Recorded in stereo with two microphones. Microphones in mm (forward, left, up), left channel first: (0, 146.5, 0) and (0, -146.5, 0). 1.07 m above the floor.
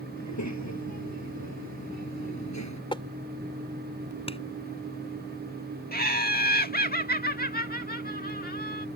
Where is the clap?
20° left (ahead or behind).